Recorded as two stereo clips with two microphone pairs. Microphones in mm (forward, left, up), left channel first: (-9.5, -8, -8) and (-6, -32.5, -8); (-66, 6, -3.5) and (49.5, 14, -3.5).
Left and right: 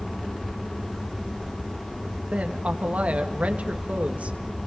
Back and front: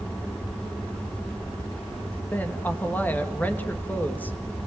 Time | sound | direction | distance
2.3 | a woman speaking | 100° right | 2.5 m